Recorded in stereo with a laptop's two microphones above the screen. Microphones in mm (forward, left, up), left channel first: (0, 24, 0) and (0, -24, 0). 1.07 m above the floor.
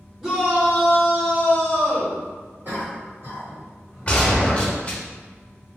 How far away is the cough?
About 1.5 m.